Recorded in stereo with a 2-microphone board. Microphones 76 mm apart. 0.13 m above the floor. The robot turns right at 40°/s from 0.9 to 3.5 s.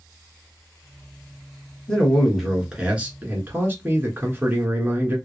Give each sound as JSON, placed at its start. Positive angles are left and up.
{"t": 1.9, "sound": "a man speaking", "azimuth_deg": 165, "distance_m": 1.3}